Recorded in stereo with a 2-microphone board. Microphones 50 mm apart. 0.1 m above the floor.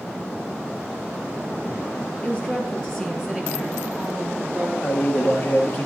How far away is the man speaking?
About 1.9 m.